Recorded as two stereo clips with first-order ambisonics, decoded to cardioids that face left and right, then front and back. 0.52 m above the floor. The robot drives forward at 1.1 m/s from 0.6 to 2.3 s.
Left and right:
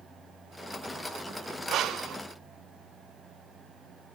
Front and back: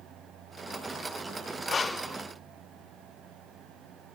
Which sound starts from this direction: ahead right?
Breathing, at 1.7 s.